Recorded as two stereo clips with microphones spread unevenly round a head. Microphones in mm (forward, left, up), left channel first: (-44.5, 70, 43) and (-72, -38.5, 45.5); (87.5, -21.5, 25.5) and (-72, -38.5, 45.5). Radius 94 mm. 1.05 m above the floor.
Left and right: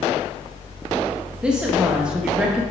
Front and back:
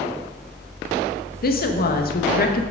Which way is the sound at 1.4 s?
20° right.